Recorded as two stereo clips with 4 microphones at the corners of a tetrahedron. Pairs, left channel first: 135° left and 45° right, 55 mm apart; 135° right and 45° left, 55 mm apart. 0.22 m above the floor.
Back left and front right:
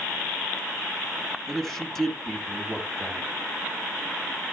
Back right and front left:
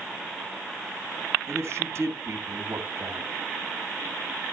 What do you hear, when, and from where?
1.5 s a man speaking: 55° left, 3 m